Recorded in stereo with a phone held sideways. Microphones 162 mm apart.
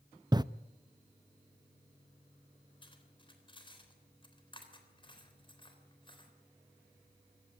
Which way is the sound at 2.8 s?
30° left (ahead or behind).